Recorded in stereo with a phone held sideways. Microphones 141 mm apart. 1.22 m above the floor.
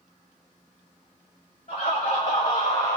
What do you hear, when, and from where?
1.7 s laughter: 75° left (ahead or behind), 1.1 m; by 3.0 s 45° left (ahead or behind), 0.6 m